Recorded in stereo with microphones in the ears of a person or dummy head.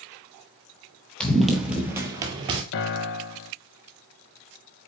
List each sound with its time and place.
1.2 s running footsteps: 5° left (ahead or behind), 1.4 m; by 2.6 s 30° right (ahead or behind), 1.4 m
2.7 s a piano: 60° left (ahead or behind), 0.7 m